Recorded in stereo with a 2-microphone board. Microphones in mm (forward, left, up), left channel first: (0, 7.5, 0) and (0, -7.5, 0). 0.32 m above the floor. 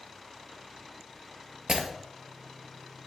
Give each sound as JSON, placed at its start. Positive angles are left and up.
{"t": 1.7, "sound": "breaking glass", "side_deg": -75, "distance_m": 2.0}